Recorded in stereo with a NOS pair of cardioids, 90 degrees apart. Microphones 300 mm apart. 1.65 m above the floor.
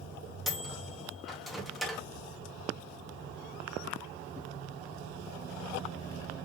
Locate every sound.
0.5 s a microwave: straight ahead, 0.9 m